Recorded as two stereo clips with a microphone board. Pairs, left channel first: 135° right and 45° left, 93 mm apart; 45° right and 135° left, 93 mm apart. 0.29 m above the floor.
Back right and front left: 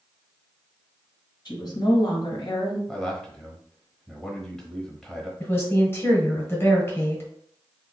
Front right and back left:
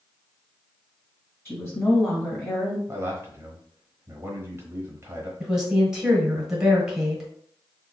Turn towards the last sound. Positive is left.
turn(degrees=-150)